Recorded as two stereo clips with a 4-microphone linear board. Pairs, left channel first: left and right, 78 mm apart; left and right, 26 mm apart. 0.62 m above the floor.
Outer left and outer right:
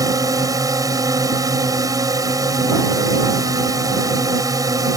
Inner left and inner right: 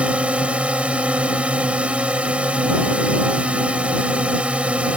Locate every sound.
0.0 s a drone: 50° right (ahead or behind)